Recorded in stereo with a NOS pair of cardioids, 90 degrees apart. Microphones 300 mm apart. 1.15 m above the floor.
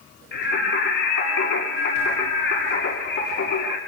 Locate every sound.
0.3 s singing: 40° left, 7.5 m